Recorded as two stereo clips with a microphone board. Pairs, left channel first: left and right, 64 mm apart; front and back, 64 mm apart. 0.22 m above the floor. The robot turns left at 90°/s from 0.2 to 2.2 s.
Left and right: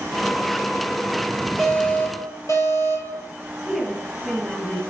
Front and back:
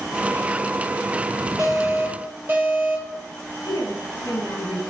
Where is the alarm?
170° left, 6 m; by 3.2 s 115° left, 6 m.